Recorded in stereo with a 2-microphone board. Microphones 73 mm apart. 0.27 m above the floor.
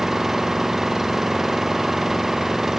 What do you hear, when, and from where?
0.0 s an engine running: 5° right (ahead or behind)